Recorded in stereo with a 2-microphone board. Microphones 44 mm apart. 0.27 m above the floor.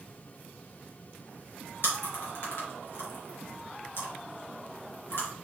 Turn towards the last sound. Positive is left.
turn(degrees=70)  # may be behind; listen again after turning